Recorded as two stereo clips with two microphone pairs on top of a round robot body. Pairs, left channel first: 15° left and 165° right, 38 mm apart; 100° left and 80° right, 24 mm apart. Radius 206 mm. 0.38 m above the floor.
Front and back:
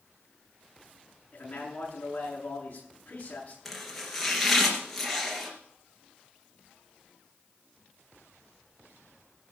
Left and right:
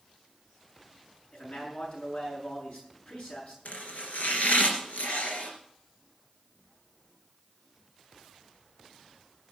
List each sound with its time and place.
1.3 s a man speaking: 70° left, 7 m
3.6 s chopping: 105° left, 3 m